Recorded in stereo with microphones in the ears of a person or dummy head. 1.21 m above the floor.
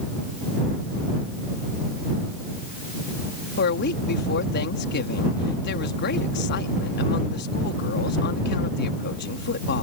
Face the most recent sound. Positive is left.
turn(degrees=60)  # may be behind; listen again after turning